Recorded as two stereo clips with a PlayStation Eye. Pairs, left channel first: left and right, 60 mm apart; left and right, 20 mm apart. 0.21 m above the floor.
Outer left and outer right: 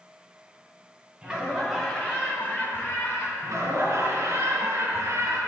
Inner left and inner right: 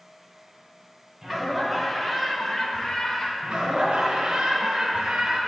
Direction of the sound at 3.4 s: 55° right (ahead or behind).